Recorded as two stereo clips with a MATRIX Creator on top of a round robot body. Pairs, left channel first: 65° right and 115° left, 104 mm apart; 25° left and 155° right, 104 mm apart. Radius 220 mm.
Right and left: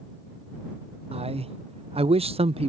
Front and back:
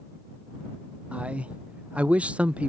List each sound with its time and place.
1.1 s a man speaking: 125° left